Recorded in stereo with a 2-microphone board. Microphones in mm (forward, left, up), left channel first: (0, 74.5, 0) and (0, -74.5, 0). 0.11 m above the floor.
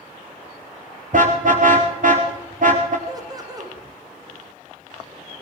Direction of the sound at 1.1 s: 60° right (ahead or behind).